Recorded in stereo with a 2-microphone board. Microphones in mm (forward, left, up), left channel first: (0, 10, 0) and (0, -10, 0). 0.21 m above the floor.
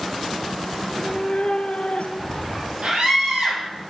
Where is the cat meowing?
15° left (ahead or behind), 1.2 m; by 2.7 s 85° left, 2.5 m.